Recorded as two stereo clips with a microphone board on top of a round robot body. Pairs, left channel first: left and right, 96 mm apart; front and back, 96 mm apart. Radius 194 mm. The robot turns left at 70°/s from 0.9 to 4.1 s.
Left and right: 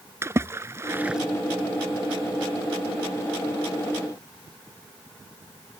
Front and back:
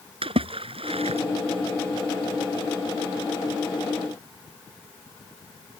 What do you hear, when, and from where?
0.2 s a splash: 155° right; by 1.2 s straight behind